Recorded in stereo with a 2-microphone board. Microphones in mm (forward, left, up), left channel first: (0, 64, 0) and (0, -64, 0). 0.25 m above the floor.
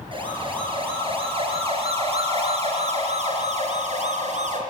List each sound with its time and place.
0.1 s a siren: 40° right (ahead or behind), 7 m; by 4.6 s 60° right (ahead or behind), 5 m